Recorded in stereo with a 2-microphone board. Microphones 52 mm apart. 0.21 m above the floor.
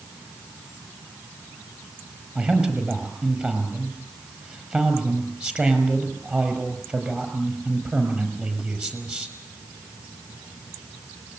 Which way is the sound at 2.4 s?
25° right (ahead or behind).